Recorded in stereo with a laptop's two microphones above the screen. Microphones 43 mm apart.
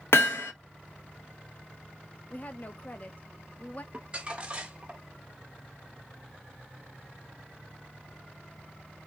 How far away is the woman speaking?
About 0.5 m.